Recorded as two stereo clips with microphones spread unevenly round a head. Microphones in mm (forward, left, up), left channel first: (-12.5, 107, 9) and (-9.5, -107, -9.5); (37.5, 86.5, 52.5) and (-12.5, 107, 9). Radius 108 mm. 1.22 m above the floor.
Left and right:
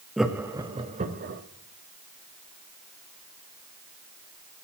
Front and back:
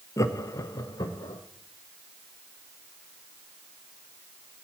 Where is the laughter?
Straight ahead, 1.0 m; by 1.4 s 40° right, 1.1 m.